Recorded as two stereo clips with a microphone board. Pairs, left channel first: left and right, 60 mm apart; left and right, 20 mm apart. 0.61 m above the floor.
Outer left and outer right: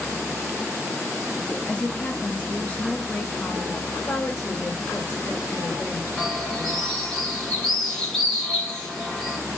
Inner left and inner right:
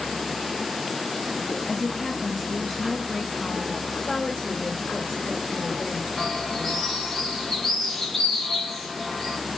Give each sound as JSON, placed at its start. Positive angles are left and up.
{"t": 1.7, "sound": "a woman speaking", "side_deg": 20, "distance_m": 0.5}
{"t": 3.9, "sound": "a woman speaking", "side_deg": 35, "distance_m": 2.5}
{"t": 6.2, "sound": "a bird", "side_deg": 15, "distance_m": 2.0}